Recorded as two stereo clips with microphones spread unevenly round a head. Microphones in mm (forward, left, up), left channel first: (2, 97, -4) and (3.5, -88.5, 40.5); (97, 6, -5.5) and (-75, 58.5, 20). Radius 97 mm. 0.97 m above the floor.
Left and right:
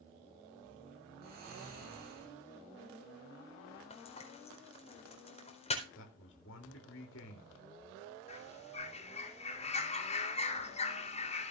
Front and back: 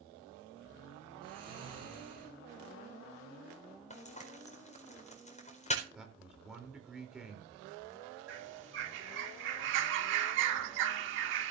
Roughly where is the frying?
Ahead left.